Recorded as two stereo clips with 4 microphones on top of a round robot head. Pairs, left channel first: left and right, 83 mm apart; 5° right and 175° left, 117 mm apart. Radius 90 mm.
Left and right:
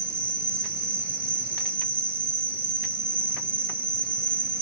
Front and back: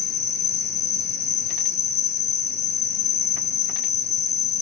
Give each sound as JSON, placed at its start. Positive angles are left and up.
{"t": 0.0, "sound": "an insect", "azimuth_deg": -25, "distance_m": 1.7}